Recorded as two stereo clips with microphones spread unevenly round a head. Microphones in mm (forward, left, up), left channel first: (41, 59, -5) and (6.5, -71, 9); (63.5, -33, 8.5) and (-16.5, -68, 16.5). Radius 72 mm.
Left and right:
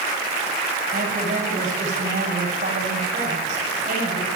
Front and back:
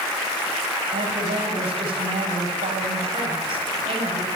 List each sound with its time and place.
0.9 s a woman speaking: 140° right, 8 m